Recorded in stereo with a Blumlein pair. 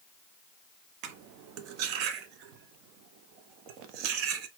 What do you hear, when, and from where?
1.0 s cutlery clinking: 40° right, 0.6 m